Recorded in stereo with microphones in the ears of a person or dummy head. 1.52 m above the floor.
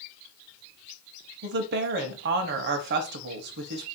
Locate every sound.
1.4 s a woman speaking: 55° right (ahead or behind), 0.7 m